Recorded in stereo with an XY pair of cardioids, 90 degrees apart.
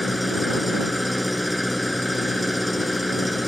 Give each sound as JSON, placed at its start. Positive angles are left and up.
{"t": 0.0, "sound": "an engine running", "azimuth_deg": 5}